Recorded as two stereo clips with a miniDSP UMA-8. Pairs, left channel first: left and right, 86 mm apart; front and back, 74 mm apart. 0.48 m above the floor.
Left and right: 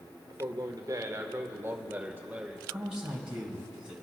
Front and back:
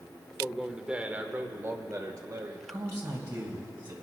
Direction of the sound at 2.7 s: 170° right.